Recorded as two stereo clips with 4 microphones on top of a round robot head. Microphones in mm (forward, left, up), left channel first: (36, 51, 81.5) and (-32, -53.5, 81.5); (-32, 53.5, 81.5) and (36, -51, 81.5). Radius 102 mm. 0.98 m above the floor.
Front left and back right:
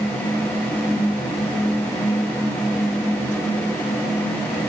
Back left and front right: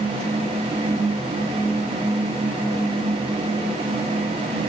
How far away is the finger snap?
I don't hear a finger snap.